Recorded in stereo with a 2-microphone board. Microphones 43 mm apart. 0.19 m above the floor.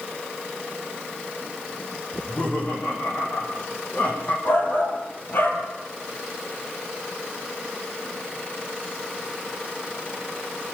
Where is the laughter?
35° left (ahead or behind), 9.5 m.